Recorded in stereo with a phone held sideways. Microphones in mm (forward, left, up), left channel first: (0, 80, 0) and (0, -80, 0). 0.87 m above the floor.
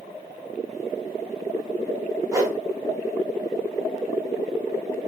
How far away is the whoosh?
About 0.6 m.